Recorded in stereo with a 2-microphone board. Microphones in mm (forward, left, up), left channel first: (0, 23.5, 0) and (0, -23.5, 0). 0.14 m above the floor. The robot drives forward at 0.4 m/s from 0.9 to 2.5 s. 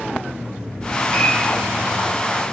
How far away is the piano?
About 3 m.